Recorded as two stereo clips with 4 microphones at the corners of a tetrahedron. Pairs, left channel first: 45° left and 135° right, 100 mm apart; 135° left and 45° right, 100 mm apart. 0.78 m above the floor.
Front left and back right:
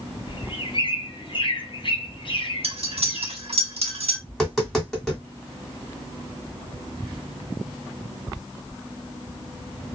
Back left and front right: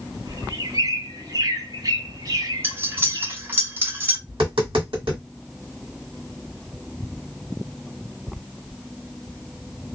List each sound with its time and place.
0.3 s a bird: 5° left, 0.6 m
2.6 s cutlery clinking: 115° right, 0.7 m
4.3 s tapping: 40° right, 1.6 m